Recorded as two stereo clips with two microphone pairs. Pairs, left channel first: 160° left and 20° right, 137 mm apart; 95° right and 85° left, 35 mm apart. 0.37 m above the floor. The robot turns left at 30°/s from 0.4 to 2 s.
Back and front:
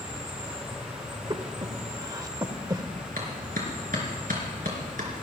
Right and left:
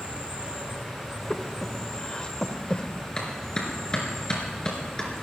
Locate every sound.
0.0 s an insect: 30° left, 6 m; by 5.2 s 15° right, 6 m
1.3 s breathing: 35° right, 0.8 m; by 2.8 s 60° right, 0.8 m
3.2 s a clap: 30° right, 4 m